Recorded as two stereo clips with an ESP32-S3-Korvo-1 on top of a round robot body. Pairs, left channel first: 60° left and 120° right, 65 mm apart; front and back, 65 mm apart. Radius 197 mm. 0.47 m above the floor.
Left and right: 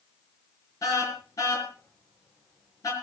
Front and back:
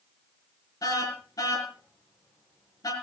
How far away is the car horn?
About 5 m.